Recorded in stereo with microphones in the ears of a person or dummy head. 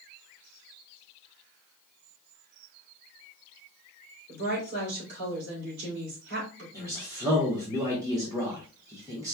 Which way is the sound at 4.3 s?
55° right (ahead or behind).